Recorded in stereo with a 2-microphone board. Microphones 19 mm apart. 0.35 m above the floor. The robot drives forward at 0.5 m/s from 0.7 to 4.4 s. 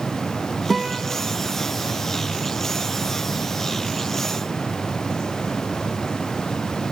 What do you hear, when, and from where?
0.7 s a guitar: centre (ahead or behind), 3.5 m